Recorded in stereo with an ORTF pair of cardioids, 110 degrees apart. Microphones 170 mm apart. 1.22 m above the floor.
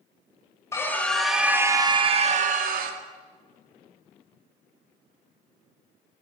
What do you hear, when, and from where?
0.7 s a scream: 15° left, 1.1 m; by 3.0 s 65° right, 1.1 m